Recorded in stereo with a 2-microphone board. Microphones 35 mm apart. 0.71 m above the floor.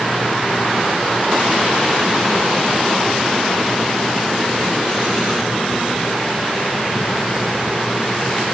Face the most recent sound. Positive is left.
No sound to turn to.